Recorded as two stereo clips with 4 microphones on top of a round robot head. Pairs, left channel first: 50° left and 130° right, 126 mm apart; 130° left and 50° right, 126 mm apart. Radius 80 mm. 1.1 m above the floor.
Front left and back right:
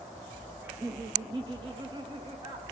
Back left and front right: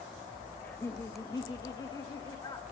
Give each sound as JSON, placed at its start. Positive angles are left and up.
{"t": 0.6, "sound": "laughter", "azimuth_deg": -170, "distance_m": 0.5}